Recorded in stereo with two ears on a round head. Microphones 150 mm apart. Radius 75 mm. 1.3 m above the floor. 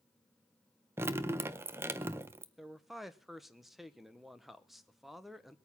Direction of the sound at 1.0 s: 15° right (ahead or behind).